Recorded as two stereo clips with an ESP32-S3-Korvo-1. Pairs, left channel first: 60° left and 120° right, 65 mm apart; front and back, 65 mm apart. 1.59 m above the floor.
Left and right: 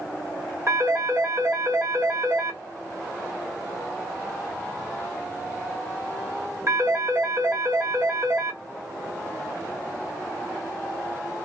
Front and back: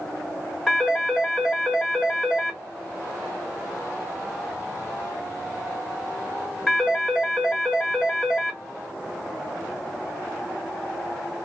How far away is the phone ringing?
About 1.2 m.